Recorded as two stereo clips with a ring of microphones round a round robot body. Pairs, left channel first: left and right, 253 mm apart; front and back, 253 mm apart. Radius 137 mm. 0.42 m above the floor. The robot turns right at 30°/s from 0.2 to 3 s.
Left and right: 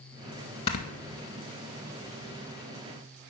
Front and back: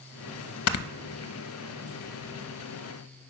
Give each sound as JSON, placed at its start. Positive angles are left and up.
{"t": 0.7, "sound": "snoring", "azimuth_deg": 20, "distance_m": 0.5}